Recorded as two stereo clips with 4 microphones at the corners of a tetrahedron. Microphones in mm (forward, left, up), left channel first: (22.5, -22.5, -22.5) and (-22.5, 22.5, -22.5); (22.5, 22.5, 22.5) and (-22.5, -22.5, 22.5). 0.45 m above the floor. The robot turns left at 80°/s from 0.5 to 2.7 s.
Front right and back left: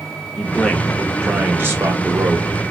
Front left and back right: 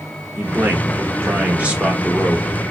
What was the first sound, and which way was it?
A man speaking, 100° right.